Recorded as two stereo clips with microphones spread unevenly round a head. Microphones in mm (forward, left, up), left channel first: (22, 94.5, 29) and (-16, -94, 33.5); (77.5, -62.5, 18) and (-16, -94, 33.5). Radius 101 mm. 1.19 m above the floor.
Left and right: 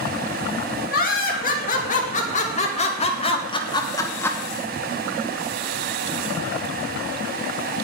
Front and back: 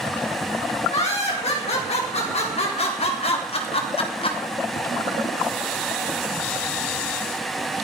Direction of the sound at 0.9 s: 35° left.